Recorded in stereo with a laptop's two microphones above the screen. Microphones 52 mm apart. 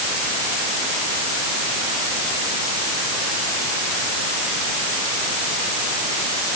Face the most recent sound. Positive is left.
No sound to turn to.